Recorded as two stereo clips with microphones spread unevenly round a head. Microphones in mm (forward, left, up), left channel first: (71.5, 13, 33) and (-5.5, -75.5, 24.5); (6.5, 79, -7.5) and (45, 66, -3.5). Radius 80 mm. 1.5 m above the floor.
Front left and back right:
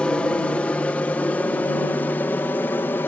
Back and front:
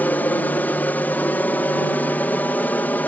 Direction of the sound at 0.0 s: 130° left.